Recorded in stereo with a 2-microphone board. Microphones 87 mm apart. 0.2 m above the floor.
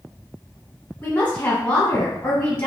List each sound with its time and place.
1.0 s a woman speaking: 25° left (ahead or behind), 1.5 m